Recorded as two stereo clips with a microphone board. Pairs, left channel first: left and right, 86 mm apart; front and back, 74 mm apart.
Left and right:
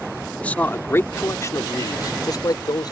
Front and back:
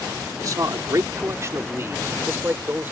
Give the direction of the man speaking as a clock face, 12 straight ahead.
7 o'clock.